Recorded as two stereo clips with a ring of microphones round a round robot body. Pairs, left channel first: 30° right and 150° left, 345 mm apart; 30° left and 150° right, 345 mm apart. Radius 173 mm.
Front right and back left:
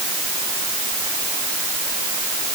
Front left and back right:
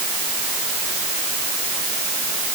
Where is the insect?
I don't hear an insect.